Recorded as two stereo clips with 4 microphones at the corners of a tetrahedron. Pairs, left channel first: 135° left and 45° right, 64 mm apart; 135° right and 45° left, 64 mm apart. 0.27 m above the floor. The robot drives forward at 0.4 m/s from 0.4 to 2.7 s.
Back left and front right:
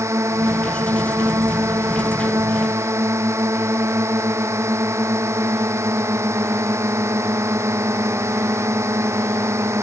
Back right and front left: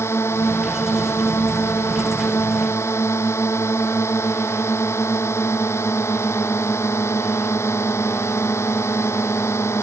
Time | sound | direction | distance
0.0 | a drone | 90° right | ?